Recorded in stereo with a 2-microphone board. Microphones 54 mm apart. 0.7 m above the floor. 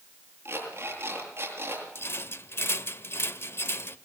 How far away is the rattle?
About 1.2 m.